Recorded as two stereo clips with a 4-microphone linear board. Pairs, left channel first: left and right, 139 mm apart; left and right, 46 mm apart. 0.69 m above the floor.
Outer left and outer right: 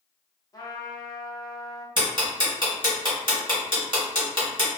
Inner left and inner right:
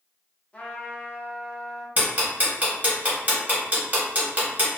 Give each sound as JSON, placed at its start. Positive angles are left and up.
{"t": 0.5, "sound": "a trumpet", "side_deg": 25, "distance_m": 0.6}
{"t": 2.0, "sound": "ticking", "side_deg": -35, "distance_m": 1.1}